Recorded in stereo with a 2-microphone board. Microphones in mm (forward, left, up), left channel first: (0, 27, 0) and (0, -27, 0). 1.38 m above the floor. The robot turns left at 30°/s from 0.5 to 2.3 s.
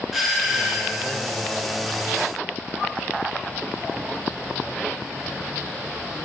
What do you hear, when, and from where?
0.1 s a doorbell: centre (ahead or behind), 1.1 m; by 1.1 s 15° right (ahead or behind), 1.1 m